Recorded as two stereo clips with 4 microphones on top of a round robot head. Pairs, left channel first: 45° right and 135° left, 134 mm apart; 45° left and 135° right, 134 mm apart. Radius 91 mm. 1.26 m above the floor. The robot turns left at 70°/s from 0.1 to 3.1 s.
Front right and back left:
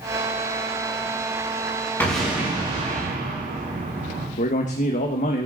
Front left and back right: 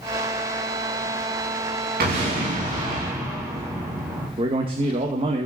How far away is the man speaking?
About 1.4 m.